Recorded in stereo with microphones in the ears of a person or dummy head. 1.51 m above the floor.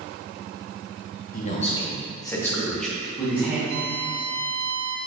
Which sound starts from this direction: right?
A violin, at 3.7 s.